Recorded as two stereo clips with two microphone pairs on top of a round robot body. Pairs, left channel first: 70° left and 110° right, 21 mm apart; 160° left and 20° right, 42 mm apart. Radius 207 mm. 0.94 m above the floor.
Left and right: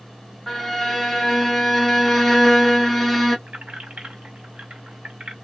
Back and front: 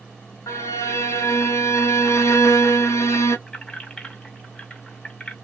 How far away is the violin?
About 1.4 m.